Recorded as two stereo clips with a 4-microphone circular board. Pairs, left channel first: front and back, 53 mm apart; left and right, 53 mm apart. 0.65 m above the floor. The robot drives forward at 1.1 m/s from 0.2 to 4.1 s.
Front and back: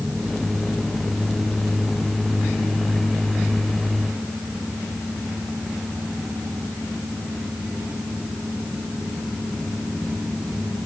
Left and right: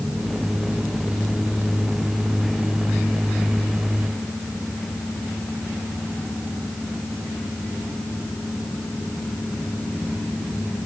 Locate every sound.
Only background noise.